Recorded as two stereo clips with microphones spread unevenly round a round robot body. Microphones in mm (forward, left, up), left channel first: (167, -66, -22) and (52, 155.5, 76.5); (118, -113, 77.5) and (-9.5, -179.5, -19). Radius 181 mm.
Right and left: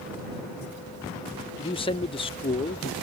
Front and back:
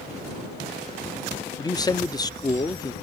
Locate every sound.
1.6 s a man speaking: 75° right